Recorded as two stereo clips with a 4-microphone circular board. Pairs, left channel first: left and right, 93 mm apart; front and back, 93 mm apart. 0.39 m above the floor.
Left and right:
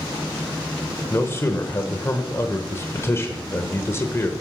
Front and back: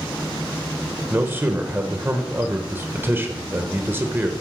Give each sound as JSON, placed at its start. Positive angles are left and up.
{"t": 1.1, "sound": "a man speaking", "azimuth_deg": 130, "distance_m": 1.0}